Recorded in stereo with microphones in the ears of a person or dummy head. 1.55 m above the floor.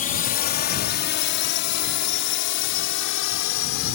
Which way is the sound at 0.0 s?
35° left (ahead or behind).